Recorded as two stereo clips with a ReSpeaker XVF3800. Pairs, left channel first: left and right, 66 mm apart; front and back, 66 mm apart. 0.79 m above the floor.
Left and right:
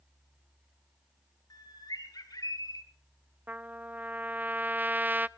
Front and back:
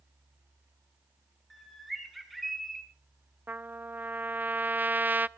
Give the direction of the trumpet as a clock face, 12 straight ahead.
5 o'clock.